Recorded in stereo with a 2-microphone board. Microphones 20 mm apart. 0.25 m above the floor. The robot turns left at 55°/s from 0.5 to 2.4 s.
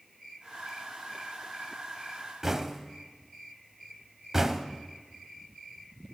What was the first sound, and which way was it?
Knocking, 20° right (ahead or behind).